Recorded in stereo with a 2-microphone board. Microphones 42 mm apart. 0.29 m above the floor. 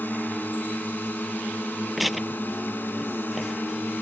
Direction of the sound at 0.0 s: 50° left (ahead or behind).